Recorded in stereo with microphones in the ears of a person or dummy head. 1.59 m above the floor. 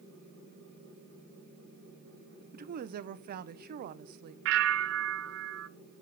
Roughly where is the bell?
Right.